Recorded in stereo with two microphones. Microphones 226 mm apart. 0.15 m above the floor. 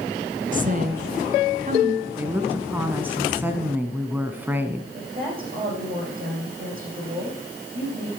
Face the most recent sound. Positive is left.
turn(degrees=-40)  # may be behind; listen again after turning